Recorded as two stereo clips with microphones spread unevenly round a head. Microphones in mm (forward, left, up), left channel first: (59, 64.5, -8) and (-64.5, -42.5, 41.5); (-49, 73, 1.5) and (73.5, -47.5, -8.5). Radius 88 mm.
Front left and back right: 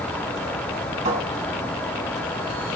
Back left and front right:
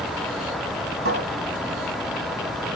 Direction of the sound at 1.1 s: 85° right.